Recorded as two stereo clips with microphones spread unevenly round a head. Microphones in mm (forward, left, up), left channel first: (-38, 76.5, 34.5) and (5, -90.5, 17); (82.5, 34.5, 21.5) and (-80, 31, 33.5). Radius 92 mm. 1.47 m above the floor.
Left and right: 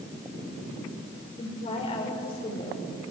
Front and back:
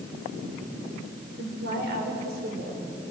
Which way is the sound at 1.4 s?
160° left.